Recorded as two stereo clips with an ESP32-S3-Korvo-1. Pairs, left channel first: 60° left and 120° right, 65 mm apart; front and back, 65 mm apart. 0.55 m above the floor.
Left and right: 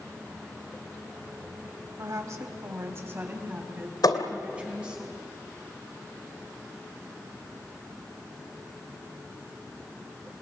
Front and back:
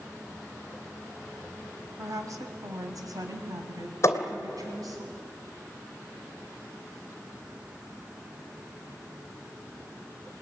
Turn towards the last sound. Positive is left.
turn(degrees=45)